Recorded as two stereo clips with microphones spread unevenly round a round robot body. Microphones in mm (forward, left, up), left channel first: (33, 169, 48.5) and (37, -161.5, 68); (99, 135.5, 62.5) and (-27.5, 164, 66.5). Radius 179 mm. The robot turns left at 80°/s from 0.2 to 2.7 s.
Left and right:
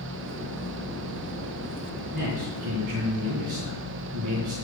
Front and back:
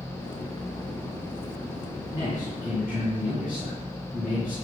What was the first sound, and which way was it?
A man speaking, 75° right.